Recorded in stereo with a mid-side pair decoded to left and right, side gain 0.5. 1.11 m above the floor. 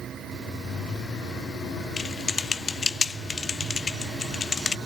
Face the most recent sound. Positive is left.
turn(degrees=30)